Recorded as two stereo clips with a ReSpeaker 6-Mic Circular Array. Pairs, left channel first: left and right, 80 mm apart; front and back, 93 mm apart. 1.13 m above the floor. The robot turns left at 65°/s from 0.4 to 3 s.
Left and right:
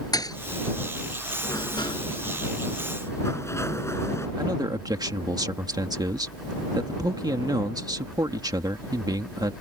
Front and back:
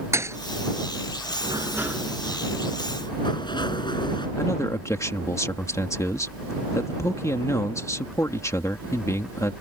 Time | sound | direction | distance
0.1 | a thud | 125° left | ?
1.4 | a sliding door | 135° left | ?
4.4 | a man speaking | 55° right | ?